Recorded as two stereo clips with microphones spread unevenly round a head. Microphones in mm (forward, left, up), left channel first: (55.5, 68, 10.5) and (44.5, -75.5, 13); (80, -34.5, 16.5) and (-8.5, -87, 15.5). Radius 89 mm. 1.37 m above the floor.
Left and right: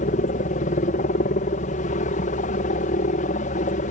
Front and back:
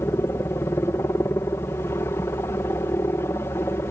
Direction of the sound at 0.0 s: 100° left.